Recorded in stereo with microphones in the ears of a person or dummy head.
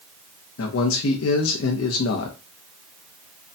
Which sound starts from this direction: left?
A man speaking, at 0.6 s.